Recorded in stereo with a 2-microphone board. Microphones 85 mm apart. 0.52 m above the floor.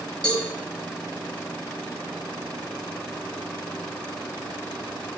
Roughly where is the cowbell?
Centre.